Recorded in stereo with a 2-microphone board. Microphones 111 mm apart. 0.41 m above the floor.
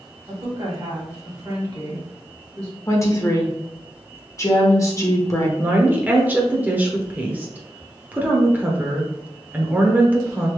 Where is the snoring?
I don't hear snoring.